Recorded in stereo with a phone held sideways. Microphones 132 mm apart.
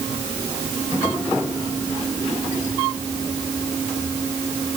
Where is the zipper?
No zipper in this recording.